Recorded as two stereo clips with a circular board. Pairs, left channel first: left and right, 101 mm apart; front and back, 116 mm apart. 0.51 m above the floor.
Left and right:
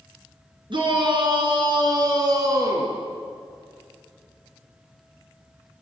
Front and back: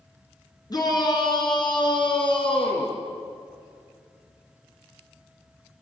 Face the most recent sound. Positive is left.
turn(degrees=-35)